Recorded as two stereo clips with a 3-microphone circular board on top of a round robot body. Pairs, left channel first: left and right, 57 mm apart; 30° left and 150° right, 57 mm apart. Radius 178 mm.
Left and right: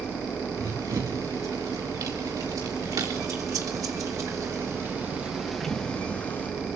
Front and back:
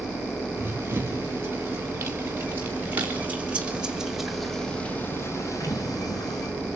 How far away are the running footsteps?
About 5.5 m.